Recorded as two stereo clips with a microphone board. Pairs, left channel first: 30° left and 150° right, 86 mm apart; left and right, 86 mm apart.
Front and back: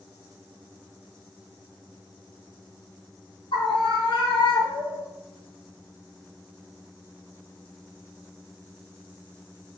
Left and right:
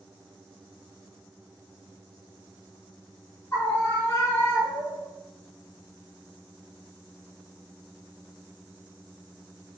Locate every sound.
3.5 s a scream: 30° left, 1.5 m; by 5.1 s 45° left, 3 m